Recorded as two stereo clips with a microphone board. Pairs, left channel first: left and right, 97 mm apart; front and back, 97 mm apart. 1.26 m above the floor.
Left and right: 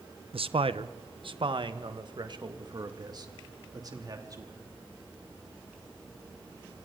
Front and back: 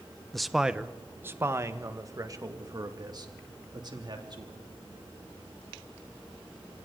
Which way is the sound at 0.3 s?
85° right.